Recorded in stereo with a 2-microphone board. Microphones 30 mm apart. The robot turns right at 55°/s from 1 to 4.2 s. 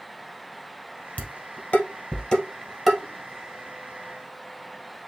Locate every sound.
1.2 s dishes clattering: 60° left (ahead or behind), 1.8 m; by 3.0 s 10° right (ahead or behind), 1.8 m